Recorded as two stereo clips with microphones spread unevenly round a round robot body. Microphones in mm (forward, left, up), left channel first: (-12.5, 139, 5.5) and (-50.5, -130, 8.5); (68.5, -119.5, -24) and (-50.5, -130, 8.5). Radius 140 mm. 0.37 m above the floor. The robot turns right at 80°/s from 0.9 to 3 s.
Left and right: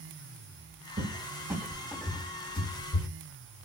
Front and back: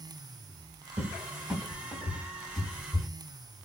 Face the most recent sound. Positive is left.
turn(degrees=75)